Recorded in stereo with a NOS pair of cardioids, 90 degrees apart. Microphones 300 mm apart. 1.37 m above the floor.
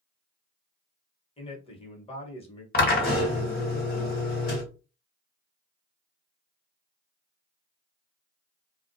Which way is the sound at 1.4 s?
20° left.